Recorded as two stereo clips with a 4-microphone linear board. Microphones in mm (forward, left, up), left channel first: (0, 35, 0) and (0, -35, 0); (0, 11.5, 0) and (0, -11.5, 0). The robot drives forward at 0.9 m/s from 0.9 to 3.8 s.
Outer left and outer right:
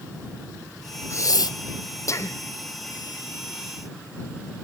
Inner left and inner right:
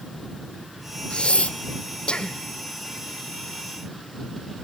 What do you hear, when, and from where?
1.1 s breathing: 45° left (ahead or behind), 0.7 m; by 2.4 s 35° left (ahead or behind), 0.8 m